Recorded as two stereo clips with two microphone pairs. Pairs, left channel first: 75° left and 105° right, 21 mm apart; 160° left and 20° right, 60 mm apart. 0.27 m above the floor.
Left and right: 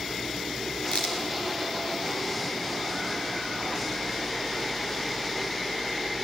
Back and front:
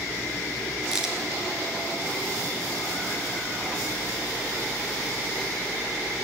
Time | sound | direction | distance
0.9 | a crack | 60° left | 1.7 m